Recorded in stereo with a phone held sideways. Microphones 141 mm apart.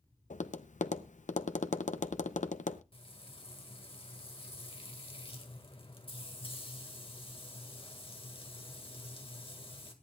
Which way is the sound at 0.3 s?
70° left (ahead or behind).